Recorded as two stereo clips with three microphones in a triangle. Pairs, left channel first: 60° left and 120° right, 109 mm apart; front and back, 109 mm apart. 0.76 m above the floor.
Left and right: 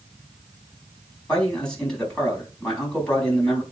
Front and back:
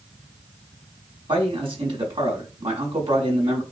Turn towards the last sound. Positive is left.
turn(degrees=140)